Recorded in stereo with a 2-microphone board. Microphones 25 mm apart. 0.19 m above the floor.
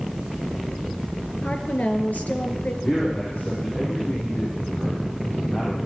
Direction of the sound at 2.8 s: 55° left (ahead or behind).